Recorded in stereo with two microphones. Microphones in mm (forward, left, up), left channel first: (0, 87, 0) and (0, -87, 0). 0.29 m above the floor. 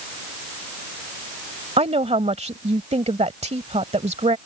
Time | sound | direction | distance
1.8 | a woman speaking | 40° right (ahead or behind) | ?